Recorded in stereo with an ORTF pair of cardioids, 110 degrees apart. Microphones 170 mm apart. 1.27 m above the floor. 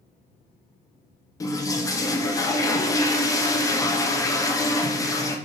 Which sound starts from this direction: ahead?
A toilet flushing, at 1.4 s.